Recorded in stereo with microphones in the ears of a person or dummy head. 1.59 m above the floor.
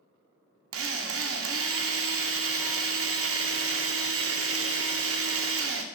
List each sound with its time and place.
0.7 s a drill: 60° right (ahead or behind), 0.5 m